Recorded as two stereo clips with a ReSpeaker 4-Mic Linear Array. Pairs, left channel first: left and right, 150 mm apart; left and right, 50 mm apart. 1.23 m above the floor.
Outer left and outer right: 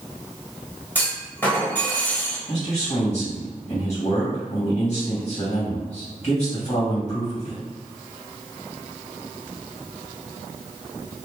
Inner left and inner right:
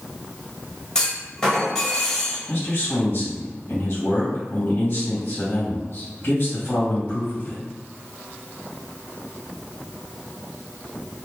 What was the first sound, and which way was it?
A clunk, 15° left (ahead or behind).